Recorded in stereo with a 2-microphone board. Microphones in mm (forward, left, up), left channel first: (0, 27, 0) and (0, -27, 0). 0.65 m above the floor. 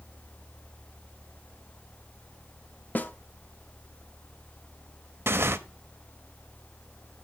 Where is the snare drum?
35° left (ahead or behind), 0.6 m.